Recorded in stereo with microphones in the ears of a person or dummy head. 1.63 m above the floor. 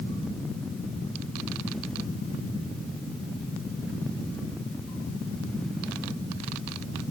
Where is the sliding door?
No sliding door in this recording.